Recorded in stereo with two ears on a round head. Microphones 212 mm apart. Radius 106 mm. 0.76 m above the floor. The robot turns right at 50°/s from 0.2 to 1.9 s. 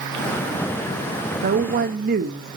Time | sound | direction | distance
1.4 | a woman speaking | 35° right (ahead or behind) | 1.1 m